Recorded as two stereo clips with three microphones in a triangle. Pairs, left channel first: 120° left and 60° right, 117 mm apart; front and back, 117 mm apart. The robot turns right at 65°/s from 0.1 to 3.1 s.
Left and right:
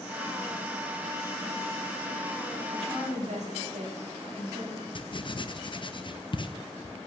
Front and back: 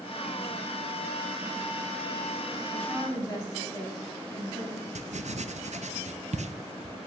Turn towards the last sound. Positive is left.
turn(degrees=170)